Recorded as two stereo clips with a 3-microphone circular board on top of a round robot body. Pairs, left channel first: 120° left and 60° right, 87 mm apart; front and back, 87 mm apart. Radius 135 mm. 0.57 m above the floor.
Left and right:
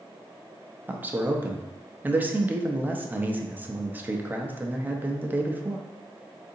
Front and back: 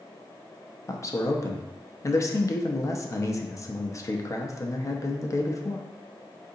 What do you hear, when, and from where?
0.9 s a man speaking: 5° right, 0.7 m